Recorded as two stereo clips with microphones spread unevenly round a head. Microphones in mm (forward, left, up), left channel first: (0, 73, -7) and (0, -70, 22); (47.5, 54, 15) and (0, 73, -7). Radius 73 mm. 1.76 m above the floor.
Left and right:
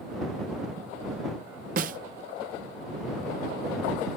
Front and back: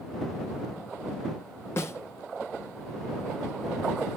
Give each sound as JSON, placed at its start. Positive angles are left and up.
{"t": 1.8, "sound": "a snare drum", "azimuth_deg": -65}